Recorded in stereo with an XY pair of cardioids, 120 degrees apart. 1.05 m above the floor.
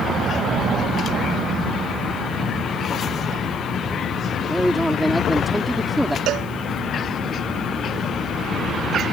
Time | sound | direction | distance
4.5 | a man speaking | 5° right | ?
6.3 | a cowbell | 70° right | ?